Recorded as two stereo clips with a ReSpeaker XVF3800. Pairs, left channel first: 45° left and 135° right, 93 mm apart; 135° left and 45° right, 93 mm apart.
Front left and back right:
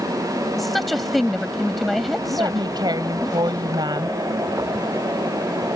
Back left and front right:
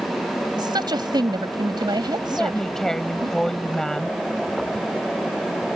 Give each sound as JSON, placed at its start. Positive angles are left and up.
{"t": 0.6, "sound": "a woman speaking", "azimuth_deg": -45}
{"t": 2.3, "sound": "a woman speaking", "azimuth_deg": -140}